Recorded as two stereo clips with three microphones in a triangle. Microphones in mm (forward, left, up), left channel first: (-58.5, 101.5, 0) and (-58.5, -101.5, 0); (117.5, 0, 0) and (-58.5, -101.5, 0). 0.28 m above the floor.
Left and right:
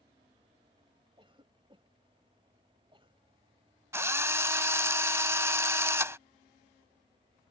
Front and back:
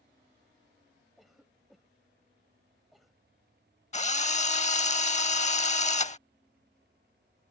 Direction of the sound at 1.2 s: 60° right.